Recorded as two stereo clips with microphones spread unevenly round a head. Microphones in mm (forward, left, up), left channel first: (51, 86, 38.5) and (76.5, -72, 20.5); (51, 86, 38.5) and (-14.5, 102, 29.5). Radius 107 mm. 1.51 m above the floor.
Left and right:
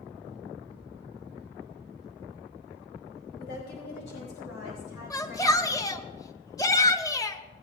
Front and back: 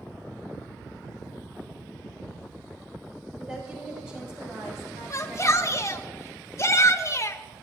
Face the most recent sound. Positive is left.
turn(degrees=30)